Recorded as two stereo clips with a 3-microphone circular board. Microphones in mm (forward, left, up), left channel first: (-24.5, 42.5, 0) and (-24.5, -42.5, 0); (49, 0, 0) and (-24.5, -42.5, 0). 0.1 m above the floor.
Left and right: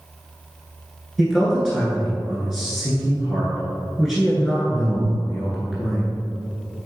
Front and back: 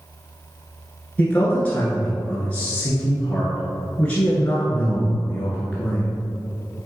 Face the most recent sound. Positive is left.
turn(degrees=-5)